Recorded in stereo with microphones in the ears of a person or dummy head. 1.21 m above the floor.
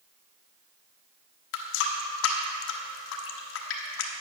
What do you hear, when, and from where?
1.5 s a running tap: 75° left (ahead or behind), 1.0 m